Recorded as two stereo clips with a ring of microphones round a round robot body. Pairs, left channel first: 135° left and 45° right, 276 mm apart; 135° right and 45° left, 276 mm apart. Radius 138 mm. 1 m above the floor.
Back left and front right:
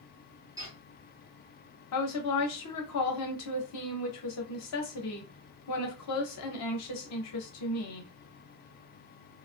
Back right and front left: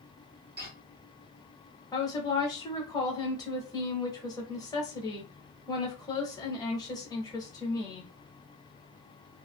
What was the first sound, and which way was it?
Footsteps, 25° left.